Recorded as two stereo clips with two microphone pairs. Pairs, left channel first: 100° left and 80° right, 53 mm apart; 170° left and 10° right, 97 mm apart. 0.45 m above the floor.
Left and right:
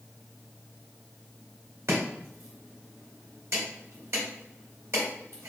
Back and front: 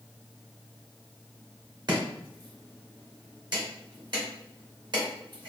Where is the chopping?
45° right, 1.8 m.